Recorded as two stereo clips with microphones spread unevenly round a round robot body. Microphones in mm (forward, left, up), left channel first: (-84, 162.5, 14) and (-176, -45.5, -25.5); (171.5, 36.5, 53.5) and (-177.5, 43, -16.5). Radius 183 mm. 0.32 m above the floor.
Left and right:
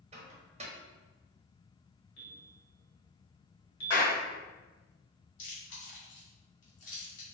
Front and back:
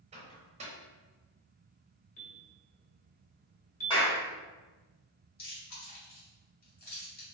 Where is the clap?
80° left, 1.8 m.